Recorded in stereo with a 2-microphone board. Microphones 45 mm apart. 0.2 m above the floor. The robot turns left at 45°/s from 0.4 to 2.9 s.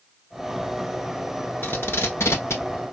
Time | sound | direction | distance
1.6 | tape being pulled | 50° left (ahead or behind) | 1.1 m